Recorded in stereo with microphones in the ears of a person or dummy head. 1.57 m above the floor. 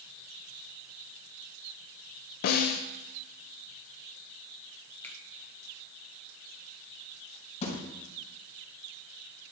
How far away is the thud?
About 3.5 m.